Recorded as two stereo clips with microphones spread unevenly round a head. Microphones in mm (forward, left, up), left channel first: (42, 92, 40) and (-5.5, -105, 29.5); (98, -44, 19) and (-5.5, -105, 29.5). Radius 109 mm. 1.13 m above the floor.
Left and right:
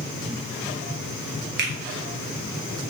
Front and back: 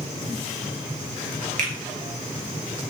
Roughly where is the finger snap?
Behind right.